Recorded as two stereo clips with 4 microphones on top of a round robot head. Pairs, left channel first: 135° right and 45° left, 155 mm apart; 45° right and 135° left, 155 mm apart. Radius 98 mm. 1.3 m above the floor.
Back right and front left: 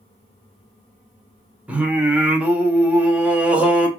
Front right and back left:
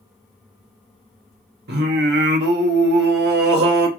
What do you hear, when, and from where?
1.7 s singing: 125° left, 0.7 m